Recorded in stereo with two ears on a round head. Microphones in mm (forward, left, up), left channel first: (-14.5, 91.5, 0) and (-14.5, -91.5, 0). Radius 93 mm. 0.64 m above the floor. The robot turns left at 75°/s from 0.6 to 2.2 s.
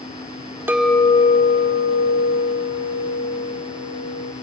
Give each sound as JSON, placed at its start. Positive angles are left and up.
{"t": 0.7, "sound": "a clink", "azimuth_deg": -170, "distance_m": 0.7}